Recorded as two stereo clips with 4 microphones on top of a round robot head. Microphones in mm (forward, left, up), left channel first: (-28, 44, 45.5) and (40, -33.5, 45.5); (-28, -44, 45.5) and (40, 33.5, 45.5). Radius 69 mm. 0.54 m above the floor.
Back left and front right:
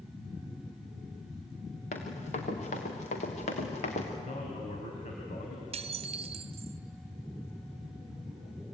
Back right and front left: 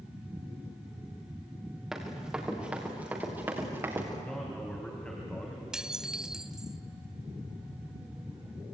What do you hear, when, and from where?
1.9 s running footsteps: 135° left, 5 m; by 4.1 s 120° left, 5 m
4.2 s a man speaking: 150° left, 3.5 m
5.7 s dishes clattering: 35° right, 1.0 m